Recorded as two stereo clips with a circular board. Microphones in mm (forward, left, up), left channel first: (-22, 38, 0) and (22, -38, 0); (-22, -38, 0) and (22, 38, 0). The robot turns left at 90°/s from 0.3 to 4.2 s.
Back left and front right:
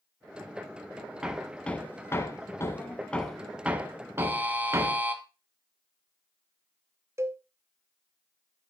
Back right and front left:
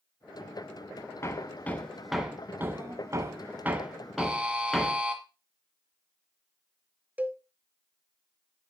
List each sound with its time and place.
1.2 s hammering: 130° right, 1.0 m; by 5.0 s 40° right, 1.0 m
4.2 s a buzzer: 5° right, 1.5 m
7.2 s a cowbell: 10° right, 0.7 m